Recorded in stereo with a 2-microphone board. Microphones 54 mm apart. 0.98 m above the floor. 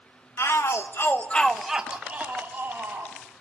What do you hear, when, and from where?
0.4 s a shout: 70° left (ahead or behind), 1.6 m; by 3.1 s 50° right (ahead or behind), 2.5 m